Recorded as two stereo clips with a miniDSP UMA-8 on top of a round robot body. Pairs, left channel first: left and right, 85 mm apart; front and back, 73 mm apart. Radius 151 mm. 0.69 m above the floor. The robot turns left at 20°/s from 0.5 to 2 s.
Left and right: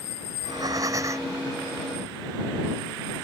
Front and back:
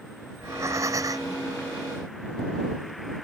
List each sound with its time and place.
0.3 s breathing: 130° right; by 1.4 s 145° right